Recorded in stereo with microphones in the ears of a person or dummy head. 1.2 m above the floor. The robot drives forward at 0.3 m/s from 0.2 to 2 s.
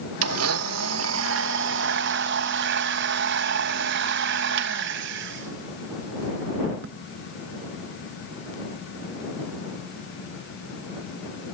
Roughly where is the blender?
Right.